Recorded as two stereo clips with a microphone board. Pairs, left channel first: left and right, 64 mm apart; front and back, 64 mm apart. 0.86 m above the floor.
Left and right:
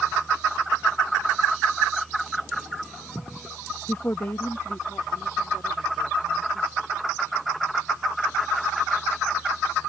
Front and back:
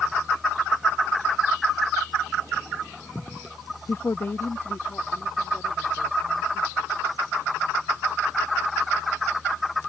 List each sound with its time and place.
3.9 s a woman speaking: 40° left